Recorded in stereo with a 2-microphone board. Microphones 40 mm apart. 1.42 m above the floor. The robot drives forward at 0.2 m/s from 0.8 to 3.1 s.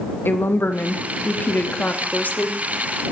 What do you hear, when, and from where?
0.2 s a woman speaking: 55° left (ahead or behind), 0.5 m; by 2.6 s 35° left (ahead or behind), 0.8 m